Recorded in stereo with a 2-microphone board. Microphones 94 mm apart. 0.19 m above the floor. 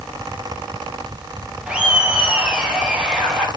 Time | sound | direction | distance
1.7 | laughter | 10° right (ahead or behind) | 3.5 m